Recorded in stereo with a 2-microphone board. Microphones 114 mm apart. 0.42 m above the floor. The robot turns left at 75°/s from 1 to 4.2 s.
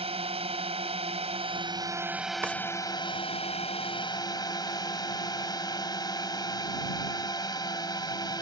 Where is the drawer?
20° right (ahead or behind); by 2.5 s 10° right (ahead or behind).